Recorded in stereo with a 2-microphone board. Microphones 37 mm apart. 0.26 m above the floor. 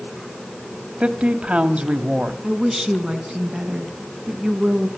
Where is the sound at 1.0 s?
30° right (ahead or behind), 1.5 m.